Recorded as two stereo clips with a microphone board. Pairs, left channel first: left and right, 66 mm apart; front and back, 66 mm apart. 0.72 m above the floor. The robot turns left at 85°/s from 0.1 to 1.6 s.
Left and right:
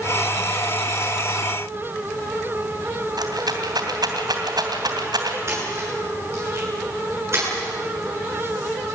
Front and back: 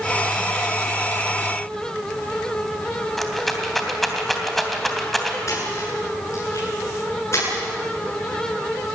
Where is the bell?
No bell in this recording.